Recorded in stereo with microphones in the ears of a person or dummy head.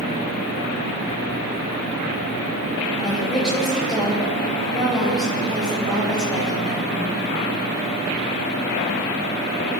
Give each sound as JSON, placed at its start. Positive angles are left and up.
{"t": 3.0, "sound": "a woman speaking", "side_deg": 0, "distance_m": 8.0}